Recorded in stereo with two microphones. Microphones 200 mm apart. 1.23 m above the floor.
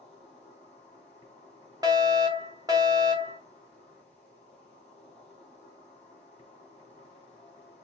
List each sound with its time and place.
0.0 s an insect: 30° left (ahead or behind), 2.5 m
1.8 s a fire alarm: 20° right (ahead or behind), 0.9 m